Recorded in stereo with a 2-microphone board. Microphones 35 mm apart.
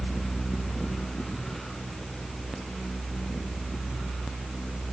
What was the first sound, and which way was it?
Only background noise.